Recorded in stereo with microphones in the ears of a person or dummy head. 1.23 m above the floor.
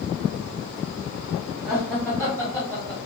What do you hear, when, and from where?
1.6 s laughter: centre (ahead or behind), 1.7 m; by 3.0 s 20° left (ahead or behind), 1.3 m